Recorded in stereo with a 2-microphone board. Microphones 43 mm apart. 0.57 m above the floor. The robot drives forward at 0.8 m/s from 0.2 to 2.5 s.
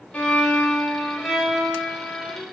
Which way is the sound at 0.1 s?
30° left (ahead or behind).